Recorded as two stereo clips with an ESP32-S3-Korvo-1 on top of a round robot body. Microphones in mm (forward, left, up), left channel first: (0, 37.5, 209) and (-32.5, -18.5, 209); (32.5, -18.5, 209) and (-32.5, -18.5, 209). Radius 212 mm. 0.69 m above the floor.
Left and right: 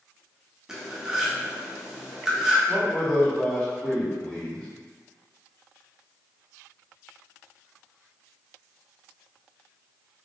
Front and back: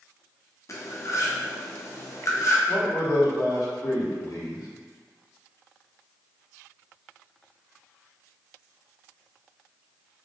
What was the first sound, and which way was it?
Cutlery clinking, 40° right.